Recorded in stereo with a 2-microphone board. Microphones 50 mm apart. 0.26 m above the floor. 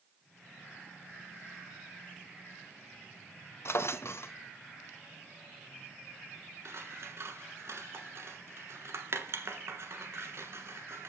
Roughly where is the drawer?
Left.